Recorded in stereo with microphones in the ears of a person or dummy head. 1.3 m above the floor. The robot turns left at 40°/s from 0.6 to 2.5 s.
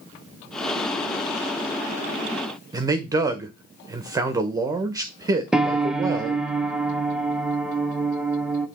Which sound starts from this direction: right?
A man speaking, at 2.7 s.